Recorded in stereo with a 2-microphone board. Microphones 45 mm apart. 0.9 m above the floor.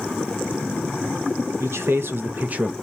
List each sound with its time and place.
1.6 s a man speaking: 60° right (ahead or behind), 0.8 m; by 2.7 s 20° right (ahead or behind), 0.5 m